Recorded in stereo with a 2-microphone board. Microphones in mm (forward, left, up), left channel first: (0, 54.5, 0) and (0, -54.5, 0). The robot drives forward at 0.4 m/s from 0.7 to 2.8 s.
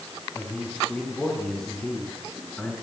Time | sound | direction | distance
0.3 | a man speaking | 5° left (ahead or behind) | 4 m